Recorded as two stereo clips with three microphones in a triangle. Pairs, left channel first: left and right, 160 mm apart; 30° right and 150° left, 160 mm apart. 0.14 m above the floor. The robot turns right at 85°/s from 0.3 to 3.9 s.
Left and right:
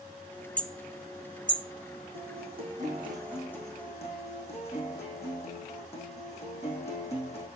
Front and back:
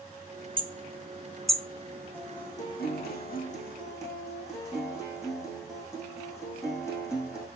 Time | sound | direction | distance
0.6 | hammering | 165° left | 1.1 m
2.1 | a guitar | 110° right | 4.5 m